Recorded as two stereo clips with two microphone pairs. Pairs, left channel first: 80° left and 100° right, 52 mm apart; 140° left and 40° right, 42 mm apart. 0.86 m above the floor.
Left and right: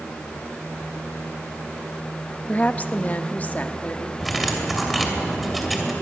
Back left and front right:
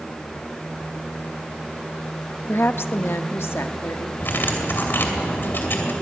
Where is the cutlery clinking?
170° left, 2.5 m.